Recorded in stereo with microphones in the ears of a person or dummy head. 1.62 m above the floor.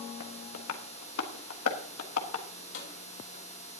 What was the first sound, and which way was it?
Tapping, 75° left (ahead or behind).